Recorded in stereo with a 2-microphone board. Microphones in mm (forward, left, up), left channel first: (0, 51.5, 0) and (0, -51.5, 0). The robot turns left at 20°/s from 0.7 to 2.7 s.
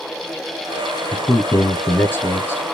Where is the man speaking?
25° left (ahead or behind), 1.1 m; by 2.6 s 20° left (ahead or behind), 1.1 m.